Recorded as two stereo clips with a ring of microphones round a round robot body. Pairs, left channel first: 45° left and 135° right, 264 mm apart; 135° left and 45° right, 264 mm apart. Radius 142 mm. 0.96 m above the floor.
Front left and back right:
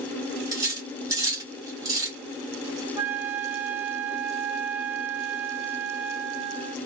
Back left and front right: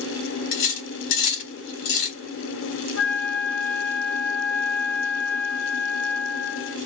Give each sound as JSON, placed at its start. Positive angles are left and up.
{"t": 0.5, "sound": "cutlery clinking", "azimuth_deg": 150, "distance_m": 1.3}
{"t": 3.0, "sound": "a flute", "azimuth_deg": 145, "distance_m": 1.3}